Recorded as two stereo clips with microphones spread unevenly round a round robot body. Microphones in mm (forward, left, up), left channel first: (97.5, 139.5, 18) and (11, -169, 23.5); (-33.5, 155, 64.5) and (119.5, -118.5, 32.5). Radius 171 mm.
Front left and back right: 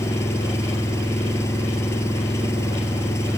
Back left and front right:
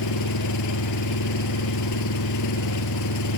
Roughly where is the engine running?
Behind left.